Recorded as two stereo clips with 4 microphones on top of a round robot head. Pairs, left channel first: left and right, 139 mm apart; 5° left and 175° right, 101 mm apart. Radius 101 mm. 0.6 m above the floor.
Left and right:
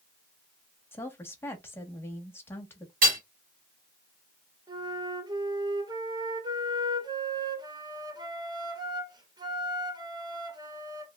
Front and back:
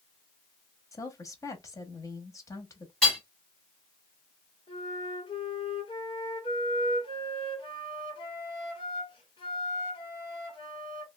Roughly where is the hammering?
Right.